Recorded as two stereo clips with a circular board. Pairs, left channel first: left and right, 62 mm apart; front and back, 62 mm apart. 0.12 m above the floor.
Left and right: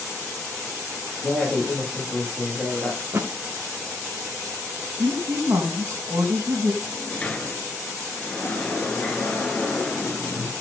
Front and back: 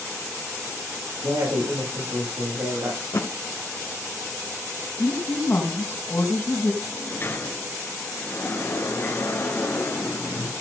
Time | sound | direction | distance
1.2 | a woman speaking | 175° right | 7 m
3.0 | a thud | 45° right | 3 m
5.0 | a woman speaking | 55° right | 4.5 m
6.8 | a sliding door | 30° left | 2 m